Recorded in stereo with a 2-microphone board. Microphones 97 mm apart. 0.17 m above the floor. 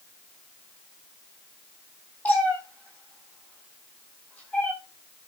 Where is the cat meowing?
15° left (ahead or behind), 9.5 m.